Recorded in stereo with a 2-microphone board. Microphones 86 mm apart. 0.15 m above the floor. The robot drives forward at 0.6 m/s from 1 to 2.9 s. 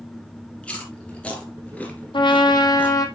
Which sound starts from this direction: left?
A trumpet, at 2.1 s.